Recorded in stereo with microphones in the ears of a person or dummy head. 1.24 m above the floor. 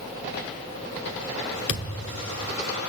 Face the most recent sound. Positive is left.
turn(degrees=40)  # may be behind; listen again after turning